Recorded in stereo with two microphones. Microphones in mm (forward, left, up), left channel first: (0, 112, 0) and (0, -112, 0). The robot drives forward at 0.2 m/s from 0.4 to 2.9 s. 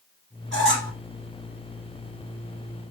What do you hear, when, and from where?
0.5 s a squeak: 60° right (ahead or behind), 1.2 m